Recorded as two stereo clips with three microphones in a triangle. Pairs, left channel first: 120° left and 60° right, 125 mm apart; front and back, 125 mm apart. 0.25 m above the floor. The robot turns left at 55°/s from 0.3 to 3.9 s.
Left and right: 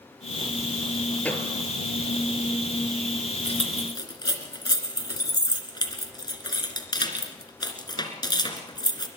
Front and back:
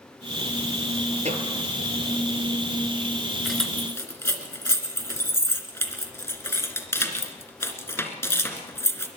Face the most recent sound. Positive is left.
turn(degrees=70)